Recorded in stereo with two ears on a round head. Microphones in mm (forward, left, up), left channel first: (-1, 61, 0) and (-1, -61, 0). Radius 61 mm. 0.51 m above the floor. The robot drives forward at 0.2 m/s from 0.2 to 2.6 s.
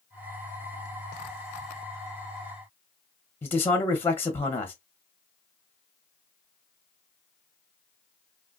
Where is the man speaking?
15° left (ahead or behind), 0.9 m.